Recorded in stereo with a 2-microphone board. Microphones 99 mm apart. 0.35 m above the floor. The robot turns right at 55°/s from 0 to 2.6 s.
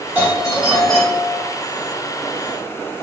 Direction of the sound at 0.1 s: 35° right.